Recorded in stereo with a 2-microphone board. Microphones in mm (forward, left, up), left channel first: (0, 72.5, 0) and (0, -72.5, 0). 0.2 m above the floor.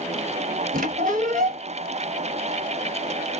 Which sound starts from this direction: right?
A squeak, at 0.7 s.